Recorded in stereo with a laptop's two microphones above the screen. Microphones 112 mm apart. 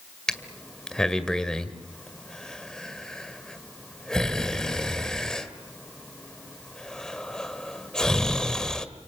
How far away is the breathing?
About 1.7 m.